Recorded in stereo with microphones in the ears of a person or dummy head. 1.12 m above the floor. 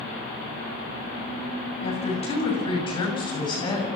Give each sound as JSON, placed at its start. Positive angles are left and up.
{"t": 1.8, "sound": "a woman speaking", "side_deg": 30, "distance_m": 8.0}